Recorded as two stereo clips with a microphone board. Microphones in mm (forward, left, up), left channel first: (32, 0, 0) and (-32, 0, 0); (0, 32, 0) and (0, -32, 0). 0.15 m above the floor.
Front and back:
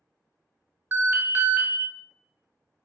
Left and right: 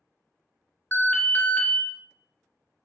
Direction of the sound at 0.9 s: 140° left.